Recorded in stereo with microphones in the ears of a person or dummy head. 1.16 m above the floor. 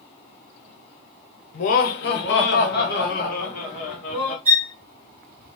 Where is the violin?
50° right (ahead or behind), 1.1 m.